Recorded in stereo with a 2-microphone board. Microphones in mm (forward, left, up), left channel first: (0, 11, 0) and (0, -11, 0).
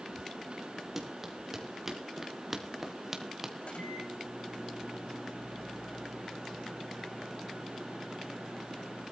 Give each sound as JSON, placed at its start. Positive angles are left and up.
{"t": 1.0, "sound": "running footsteps", "side_deg": -15, "distance_m": 4.5}
{"t": 3.6, "sound": "a microwave", "side_deg": 75, "distance_m": 8.5}